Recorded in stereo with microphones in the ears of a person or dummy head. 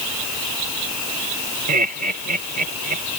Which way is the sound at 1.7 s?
45° right (ahead or behind).